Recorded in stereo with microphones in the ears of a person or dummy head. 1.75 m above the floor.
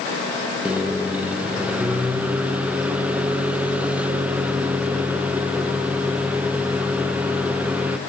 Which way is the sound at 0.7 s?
5° right (ahead or behind).